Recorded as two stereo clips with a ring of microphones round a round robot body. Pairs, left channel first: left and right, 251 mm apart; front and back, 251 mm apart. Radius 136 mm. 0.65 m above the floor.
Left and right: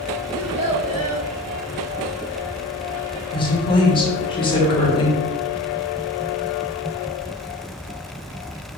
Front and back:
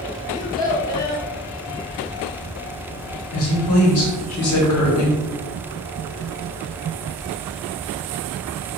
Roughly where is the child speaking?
Right.